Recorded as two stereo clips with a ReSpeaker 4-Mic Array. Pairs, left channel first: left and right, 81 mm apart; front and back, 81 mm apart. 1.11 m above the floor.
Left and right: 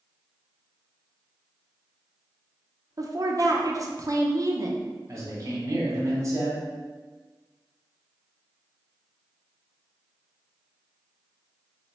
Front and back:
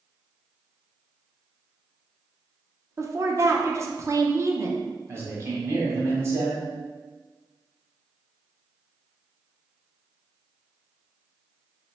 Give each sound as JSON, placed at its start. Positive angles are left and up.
{"t": 3.0, "sound": "a woman speaking", "azimuth_deg": -130, "distance_m": 0.6}
{"t": 5.1, "sound": "a man speaking", "azimuth_deg": -130, "distance_m": 1.1}